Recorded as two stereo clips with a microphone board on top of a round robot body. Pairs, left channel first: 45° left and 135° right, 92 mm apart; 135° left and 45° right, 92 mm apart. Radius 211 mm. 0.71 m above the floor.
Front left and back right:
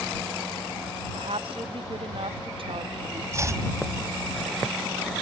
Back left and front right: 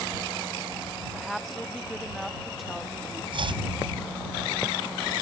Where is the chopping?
75° right.